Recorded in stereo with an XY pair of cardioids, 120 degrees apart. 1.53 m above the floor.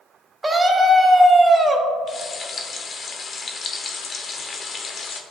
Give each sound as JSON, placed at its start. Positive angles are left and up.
{"t": 0.4, "sound": "a scream", "azimuth_deg": -20, "distance_m": 1.1}
{"t": 2.1, "sound": "frying", "azimuth_deg": 40, "distance_m": 0.8}